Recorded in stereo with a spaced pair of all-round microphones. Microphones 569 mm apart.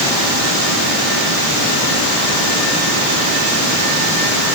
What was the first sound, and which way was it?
Only background noise.